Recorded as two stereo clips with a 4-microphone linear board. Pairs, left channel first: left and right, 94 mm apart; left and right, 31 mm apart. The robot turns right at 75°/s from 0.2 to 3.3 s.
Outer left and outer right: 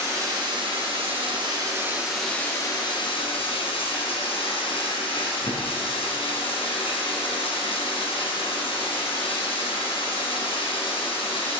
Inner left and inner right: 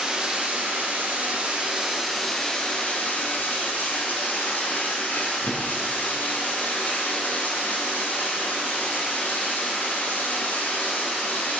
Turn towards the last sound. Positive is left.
turn(degrees=85)